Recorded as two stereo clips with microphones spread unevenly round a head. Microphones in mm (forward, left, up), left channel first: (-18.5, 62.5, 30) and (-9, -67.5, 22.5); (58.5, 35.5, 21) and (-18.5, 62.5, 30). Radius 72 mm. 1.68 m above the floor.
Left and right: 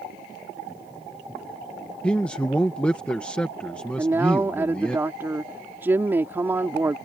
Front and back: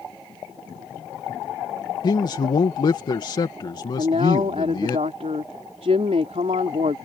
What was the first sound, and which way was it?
A man speaking, 15° left.